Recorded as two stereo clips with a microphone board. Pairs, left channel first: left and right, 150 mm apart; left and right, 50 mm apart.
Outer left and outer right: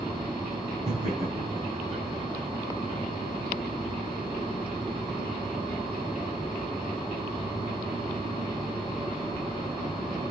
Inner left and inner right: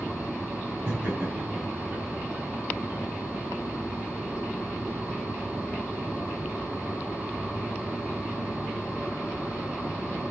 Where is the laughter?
45° right (ahead or behind), 5 m.